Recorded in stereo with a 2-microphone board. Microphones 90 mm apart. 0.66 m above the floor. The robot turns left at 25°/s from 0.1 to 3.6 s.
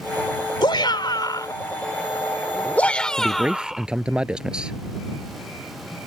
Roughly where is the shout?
Left.